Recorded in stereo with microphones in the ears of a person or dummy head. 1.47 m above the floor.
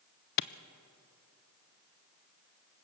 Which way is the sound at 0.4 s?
60° left (ahead or behind).